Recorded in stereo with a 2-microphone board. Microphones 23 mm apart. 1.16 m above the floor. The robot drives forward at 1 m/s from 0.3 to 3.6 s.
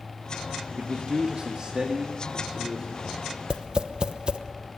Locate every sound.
0.8 s a man speaking: 75° right (ahead or behind), 1.1 m; by 3.2 s 20° right (ahead or behind), 3 m
3.5 s tapping: 45° right (ahead or behind), 0.9 m